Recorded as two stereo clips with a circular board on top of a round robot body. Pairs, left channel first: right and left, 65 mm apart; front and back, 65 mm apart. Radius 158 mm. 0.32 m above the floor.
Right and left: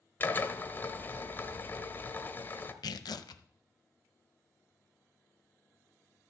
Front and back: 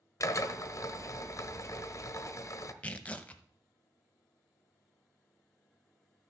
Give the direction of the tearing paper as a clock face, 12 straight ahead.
2 o'clock.